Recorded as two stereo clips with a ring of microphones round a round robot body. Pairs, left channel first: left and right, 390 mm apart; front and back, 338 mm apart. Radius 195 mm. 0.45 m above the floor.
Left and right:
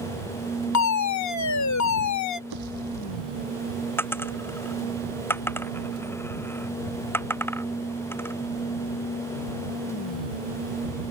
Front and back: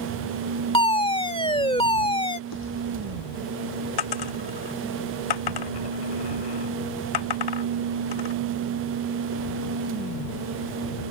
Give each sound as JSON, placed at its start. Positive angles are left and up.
{"t": 0.7, "sound": "a fire alarm", "azimuth_deg": 70}
{"t": 2.5, "sound": "a pop", "azimuth_deg": -55}
{"t": 4.0, "sound": "a dropped coin", "azimuth_deg": 5}